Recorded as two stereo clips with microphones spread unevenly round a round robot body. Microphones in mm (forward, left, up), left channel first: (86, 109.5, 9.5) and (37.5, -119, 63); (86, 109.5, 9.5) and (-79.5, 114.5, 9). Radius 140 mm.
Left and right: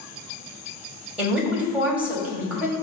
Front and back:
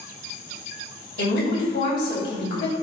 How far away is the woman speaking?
About 3 m.